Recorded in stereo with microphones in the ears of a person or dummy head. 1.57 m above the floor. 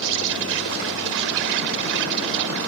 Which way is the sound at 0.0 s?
75° right (ahead or behind).